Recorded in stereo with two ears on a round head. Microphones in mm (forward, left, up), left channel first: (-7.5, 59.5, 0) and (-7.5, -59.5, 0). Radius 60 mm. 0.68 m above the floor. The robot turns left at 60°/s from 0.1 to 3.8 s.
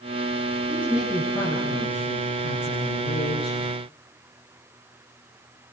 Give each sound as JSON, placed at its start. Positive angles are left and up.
{"t": 0.7, "sound": "a woman speaking", "azimuth_deg": -155, "distance_m": 9.5}